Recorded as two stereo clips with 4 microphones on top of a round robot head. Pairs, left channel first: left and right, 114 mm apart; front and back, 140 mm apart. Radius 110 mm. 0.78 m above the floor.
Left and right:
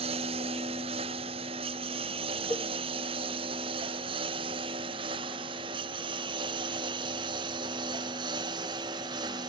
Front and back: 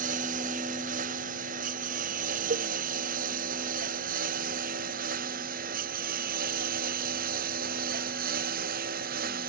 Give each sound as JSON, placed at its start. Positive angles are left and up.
{"t": 0.0, "sound": "a lawn mower", "azimuth_deg": -140}
{"t": 2.5, "sound": "a cowbell", "azimuth_deg": 170}